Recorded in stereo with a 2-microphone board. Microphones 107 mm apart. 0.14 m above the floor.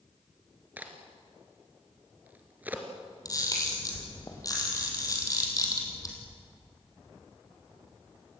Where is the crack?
15° right (ahead or behind), 2.5 m.